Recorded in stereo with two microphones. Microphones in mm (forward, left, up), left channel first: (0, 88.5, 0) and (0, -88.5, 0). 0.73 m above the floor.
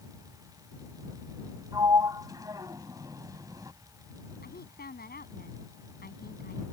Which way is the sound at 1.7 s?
20° right (ahead or behind).